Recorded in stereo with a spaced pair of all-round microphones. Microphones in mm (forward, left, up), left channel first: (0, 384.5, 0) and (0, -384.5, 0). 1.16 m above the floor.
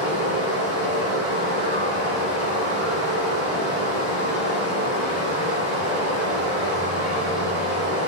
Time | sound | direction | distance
0.0 | running water | 40° right (ahead or behind) | 0.9 m